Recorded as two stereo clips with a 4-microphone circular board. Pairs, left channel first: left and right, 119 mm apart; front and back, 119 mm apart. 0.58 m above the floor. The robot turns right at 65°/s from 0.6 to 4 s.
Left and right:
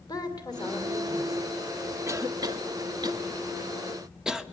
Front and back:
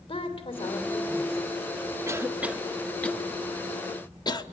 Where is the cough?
135° right, 1.0 m; by 4.4 s 10° right, 1.0 m.